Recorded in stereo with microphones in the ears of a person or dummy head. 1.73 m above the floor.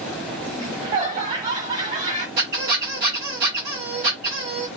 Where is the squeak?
45° right (ahead or behind), 1.5 m.